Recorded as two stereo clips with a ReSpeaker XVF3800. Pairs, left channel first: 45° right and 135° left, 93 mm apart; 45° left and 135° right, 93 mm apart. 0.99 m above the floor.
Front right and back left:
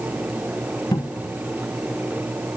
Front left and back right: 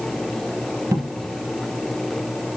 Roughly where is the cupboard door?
Right.